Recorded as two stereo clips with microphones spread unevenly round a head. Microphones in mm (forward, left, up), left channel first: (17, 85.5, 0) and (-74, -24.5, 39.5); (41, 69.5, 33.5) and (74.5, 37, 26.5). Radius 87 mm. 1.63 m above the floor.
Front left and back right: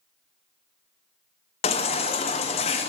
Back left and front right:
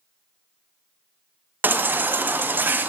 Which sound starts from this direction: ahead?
A baby crying, at 1.6 s.